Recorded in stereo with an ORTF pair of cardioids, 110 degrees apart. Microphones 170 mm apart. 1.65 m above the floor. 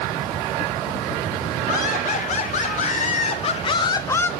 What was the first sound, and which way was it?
Laughter, 55° left.